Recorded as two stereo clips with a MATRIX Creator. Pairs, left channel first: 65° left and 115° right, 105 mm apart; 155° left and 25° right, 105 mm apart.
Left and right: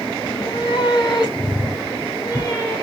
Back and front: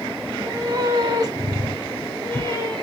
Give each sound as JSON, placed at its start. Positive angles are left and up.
{"t": 0.2, "sound": "a cat meowing", "azimuth_deg": 35, "distance_m": 1.2}